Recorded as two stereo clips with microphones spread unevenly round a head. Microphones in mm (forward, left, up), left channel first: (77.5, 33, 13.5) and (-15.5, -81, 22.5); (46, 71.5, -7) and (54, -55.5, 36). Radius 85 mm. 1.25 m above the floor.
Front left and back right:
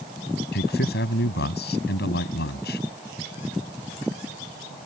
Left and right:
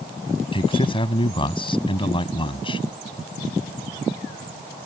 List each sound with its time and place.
0.5 s a man speaking: 40° left